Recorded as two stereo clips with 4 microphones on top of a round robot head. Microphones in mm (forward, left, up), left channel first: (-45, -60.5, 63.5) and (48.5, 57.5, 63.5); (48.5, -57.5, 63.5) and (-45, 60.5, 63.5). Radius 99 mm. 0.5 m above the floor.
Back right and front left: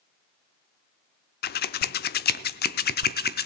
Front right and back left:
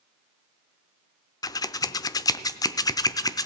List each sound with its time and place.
1.4 s scissors: 120° right, 0.6 m